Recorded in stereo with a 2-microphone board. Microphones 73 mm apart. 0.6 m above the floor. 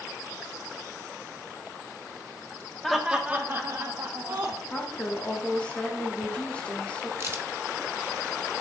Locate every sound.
2.8 s laughter: 5° left (ahead or behind), 0.7 m; by 4.6 s 60° right (ahead or behind), 1.2 m
4.7 s a woman speaking: 15° left (ahead or behind), 0.9 m
7.2 s a crack: 40° right (ahead or behind), 0.5 m